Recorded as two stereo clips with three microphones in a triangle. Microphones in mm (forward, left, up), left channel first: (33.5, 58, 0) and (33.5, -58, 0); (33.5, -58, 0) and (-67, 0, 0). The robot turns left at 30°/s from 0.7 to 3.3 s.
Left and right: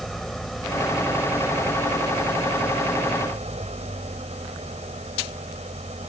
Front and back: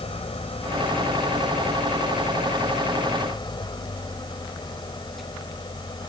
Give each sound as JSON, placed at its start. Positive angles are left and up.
{"t": 0.0, "sound": "an engine running", "azimuth_deg": 0}